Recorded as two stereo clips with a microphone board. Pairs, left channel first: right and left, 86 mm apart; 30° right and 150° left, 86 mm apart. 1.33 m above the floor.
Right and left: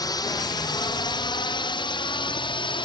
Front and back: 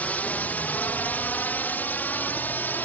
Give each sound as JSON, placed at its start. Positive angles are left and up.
{"t": 0.0, "sound": "a drone", "azimuth_deg": -95}